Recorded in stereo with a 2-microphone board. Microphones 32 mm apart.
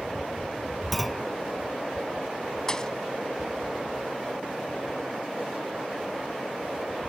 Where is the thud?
20° left (ahead or behind).